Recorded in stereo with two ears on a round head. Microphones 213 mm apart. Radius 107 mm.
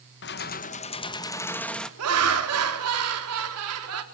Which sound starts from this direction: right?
Laughter, at 2.0 s.